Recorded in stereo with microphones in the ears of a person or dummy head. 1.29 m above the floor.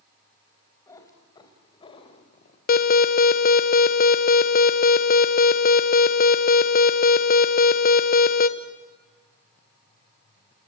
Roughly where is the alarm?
Left.